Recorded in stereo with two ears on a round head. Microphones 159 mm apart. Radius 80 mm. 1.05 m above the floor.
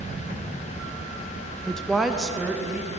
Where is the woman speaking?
5° left (ahead or behind), 0.6 m; by 2.9 s 5° right (ahead or behind), 1.7 m.